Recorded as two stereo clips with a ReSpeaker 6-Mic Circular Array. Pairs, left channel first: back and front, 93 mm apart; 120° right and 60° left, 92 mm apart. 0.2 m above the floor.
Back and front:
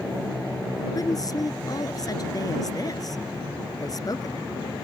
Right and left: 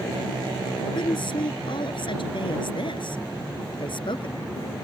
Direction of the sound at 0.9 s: 135° right.